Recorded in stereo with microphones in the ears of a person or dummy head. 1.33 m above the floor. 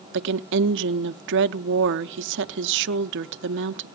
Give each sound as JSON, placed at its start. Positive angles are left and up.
{"t": 0.1, "sound": "a woman speaking", "side_deg": -60, "distance_m": 0.6}